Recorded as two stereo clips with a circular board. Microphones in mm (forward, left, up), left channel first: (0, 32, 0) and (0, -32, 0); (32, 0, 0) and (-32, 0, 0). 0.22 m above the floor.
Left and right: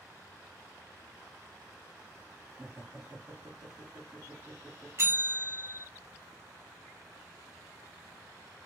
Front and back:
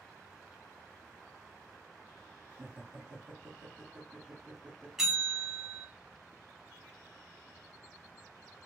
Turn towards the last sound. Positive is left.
turn(degrees=-100)